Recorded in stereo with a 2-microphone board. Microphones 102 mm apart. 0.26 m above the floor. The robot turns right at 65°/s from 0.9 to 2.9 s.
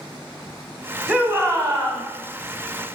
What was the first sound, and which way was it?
A shout, 165° right.